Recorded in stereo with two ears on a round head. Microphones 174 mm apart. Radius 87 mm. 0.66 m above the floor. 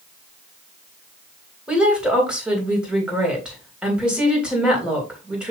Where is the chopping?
I don't hear chopping.